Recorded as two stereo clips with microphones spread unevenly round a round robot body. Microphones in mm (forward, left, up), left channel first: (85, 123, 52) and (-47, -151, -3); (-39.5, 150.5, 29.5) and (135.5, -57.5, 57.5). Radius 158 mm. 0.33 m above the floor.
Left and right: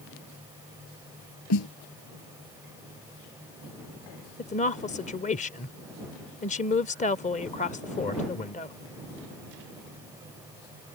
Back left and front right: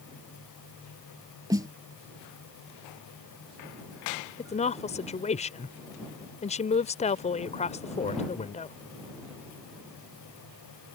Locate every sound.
1.5 s a snare drum: 25° left
4.4 s a woman speaking: 125° left